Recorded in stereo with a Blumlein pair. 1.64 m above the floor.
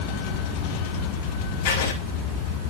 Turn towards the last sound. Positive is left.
turn(degrees=55)